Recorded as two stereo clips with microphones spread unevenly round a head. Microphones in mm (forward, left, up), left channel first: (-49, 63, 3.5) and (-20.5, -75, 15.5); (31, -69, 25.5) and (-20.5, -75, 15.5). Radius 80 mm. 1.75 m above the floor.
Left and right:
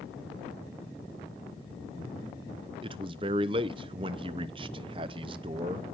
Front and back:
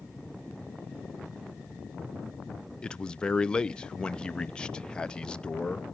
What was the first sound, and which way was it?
A man speaking, 45° right.